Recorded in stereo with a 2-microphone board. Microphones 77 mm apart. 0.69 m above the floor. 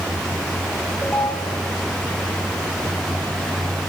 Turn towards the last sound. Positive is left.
turn(degrees=20)  # may be behind; listen again after turning